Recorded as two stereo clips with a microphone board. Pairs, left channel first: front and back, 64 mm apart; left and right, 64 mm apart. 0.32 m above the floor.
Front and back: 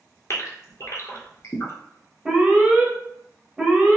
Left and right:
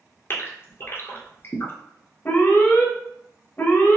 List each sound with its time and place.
0.3 s a gasp: 40° left, 0.9 m
2.2 s an alarm: 115° left, 0.7 m